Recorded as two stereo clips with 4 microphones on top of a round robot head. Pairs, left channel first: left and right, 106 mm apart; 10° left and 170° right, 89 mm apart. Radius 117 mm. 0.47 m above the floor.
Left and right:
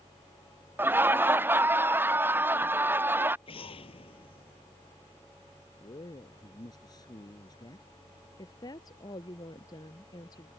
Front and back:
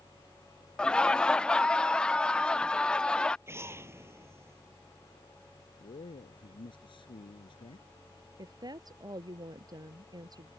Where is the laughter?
55° right.